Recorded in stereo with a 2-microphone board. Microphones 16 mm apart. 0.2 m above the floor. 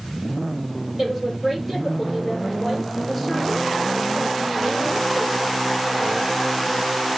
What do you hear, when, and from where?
1.0 s a woman speaking: 10° right (ahead or behind), 5 m